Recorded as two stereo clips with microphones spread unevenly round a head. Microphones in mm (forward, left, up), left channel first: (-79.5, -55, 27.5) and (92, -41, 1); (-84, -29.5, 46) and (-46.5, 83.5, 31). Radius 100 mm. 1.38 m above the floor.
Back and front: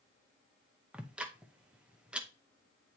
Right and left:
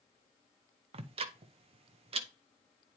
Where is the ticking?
95° left, 0.6 m.